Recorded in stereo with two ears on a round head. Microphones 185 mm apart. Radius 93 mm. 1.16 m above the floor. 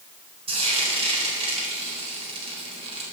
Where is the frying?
30° right (ahead or behind), 4 m.